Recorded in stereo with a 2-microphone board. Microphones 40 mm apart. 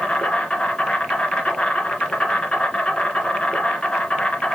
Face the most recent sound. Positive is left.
turn(degrees=30)  # may be behind; listen again after turning